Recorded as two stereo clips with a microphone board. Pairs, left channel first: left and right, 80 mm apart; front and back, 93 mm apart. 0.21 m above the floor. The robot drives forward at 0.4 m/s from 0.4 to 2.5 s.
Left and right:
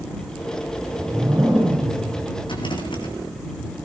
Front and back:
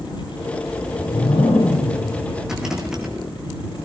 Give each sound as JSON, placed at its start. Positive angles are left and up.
{"t": 0.7, "sound": "a whoosh", "azimuth_deg": -20, "distance_m": 9.5}
{"t": 2.4, "sound": "a rattle", "azimuth_deg": 95, "distance_m": 2.5}